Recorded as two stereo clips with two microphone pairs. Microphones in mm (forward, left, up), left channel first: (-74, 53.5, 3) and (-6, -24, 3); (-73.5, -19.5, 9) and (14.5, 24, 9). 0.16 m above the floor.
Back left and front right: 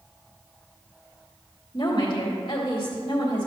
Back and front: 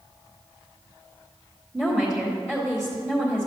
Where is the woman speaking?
115° left, 1.8 m.